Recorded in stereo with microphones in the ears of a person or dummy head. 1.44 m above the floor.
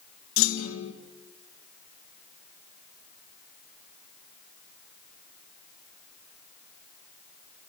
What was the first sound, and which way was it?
A clunk, 65° left (ahead or behind).